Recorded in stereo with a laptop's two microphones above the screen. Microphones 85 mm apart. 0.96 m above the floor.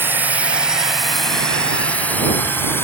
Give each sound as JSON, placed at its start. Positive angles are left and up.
{"t": 0.0, "sound": "a drone", "side_deg": -25}